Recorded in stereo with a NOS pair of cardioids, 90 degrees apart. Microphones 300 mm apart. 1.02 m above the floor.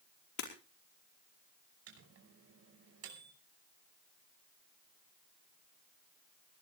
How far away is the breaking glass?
About 5 m.